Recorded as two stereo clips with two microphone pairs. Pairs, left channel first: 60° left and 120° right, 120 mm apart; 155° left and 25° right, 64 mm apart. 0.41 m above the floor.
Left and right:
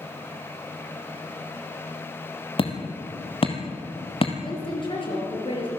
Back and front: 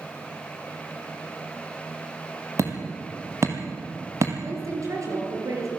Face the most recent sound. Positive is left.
turn(degrees=10)